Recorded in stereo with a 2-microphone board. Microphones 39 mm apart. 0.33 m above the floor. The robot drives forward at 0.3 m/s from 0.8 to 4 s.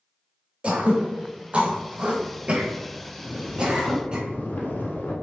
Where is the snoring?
75° left (ahead or behind), 0.8 m; by 5.1 s 60° left (ahead or behind), 0.9 m.